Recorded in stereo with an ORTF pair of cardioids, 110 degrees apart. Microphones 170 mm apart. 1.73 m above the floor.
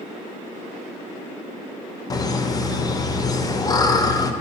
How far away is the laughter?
About 0.6 m.